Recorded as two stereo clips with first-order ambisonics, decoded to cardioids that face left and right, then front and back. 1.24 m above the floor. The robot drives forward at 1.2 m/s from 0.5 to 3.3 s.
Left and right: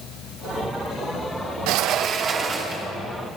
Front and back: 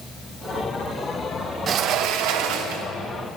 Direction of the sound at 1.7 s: 120° right.